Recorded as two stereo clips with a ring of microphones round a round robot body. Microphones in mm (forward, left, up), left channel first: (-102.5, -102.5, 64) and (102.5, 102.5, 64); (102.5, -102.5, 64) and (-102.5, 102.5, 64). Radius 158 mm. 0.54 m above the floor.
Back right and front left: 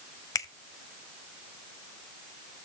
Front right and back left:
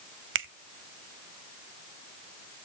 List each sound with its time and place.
0.3 s a finger snap: 150° left, 0.9 m